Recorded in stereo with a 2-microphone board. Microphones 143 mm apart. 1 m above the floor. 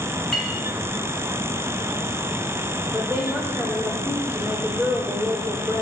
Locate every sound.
0.3 s a clink: 5° left (ahead or behind), 6 m
2.9 s a woman speaking: 10° right (ahead or behind), 3.5 m